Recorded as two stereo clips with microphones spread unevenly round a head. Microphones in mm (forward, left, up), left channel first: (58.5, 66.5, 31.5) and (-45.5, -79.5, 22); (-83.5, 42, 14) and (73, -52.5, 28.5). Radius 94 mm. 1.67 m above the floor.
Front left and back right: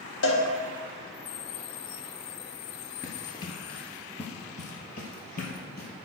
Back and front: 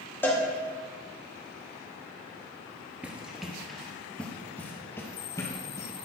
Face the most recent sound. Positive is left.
turn(degrees=75)